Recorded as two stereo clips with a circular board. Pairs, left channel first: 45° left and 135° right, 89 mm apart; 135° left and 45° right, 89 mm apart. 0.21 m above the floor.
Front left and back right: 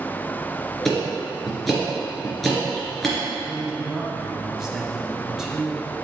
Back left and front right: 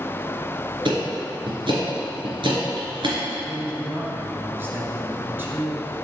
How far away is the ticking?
About 3 m.